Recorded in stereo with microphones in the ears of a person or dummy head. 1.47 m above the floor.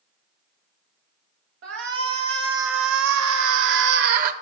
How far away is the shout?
About 1.9 m.